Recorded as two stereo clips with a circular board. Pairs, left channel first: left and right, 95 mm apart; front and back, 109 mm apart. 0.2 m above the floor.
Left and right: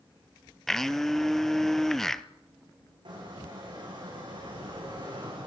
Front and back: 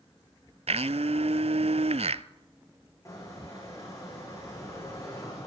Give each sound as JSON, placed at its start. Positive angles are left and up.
{"t": 0.7, "sound": "a blender", "azimuth_deg": 175, "distance_m": 0.6}
{"t": 3.0, "sound": "a squeak", "azimuth_deg": -60, "distance_m": 9.5}